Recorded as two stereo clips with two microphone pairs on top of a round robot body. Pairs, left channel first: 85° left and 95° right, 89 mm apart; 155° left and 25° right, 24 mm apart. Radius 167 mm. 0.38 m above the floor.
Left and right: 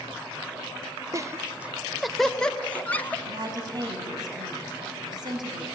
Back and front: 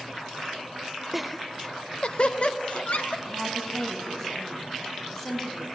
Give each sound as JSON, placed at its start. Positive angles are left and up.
{"t": 1.1, "sound": "laughter", "azimuth_deg": -110, "distance_m": 0.9}
{"t": 3.2, "sound": "a woman speaking", "azimuth_deg": -140, "distance_m": 4.5}